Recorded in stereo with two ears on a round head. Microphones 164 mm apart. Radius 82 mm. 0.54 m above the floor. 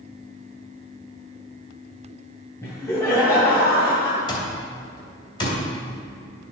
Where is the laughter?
15° left (ahead or behind), 2.0 m.